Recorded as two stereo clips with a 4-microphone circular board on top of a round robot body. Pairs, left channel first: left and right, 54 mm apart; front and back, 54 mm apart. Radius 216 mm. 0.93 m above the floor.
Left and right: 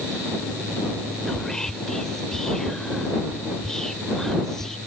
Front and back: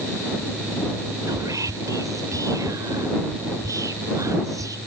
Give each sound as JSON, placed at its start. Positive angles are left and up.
{"t": 1.3, "sound": "whispering", "azimuth_deg": 170}